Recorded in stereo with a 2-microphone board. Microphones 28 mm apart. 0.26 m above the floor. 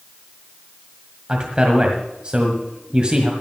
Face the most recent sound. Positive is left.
turn(degrees=-35)  # may be behind; listen again after turning